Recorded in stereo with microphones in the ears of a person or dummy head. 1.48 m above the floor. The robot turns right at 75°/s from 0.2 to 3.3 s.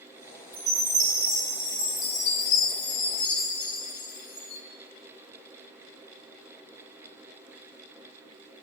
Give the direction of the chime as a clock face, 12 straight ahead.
3 o'clock.